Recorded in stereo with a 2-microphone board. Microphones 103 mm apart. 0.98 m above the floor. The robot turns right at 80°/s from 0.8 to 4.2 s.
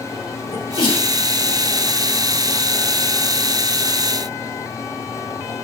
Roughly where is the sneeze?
Left.